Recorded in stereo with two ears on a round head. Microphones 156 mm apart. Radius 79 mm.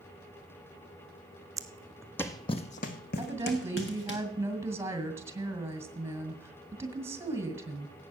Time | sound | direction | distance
1.6 | footsteps | 20° right (ahead or behind) | 1.0 m
3.2 | a woman speaking | 15° right (ahead or behind) | 2 m